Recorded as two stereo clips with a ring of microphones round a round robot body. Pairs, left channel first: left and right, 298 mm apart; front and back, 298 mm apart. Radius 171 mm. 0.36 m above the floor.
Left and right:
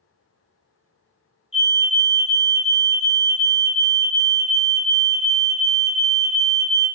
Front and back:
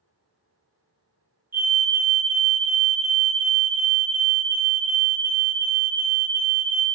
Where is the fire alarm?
110° left, 2.5 m.